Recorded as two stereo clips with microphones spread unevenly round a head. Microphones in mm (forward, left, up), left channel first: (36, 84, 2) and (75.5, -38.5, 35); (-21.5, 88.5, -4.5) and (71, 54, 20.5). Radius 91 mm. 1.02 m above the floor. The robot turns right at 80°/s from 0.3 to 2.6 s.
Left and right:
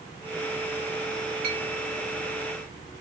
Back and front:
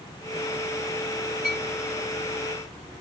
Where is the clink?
65° right, 1.0 m; by 1.6 s 50° right, 1.0 m.